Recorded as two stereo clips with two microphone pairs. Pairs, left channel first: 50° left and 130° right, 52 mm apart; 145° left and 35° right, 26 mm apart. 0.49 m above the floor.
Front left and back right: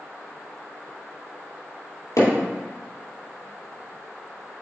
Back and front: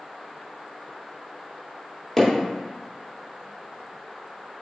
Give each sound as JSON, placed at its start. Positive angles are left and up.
{"t": 2.2, "sound": "hammering", "azimuth_deg": 60, "distance_m": 3.0}